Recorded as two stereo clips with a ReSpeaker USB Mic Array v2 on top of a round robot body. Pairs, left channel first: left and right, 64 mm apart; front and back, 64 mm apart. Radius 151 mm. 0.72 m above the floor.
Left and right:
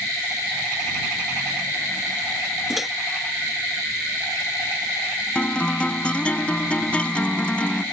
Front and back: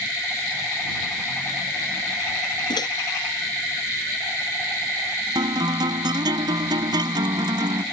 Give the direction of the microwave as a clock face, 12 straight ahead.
12 o'clock.